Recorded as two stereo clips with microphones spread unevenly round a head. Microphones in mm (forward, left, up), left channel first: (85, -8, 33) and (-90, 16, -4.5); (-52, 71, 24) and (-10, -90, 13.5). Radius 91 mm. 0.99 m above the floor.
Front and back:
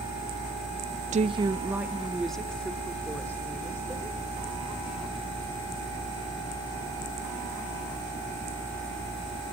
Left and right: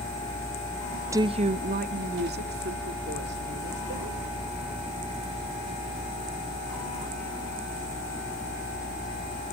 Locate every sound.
1.1 s a woman speaking: 145° right, 0.6 m; by 4.2 s 85° right, 3.5 m